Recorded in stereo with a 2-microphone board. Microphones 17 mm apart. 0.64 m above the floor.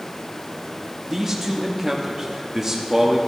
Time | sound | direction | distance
1.1 | a man speaking | 20° right (ahead or behind) | 0.7 m